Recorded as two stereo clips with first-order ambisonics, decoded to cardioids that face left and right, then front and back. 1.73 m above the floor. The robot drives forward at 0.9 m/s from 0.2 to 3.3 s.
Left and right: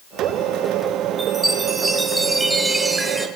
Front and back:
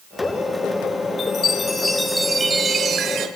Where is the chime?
10° right, 1.7 m; by 3.3 s 170° right, 1.8 m.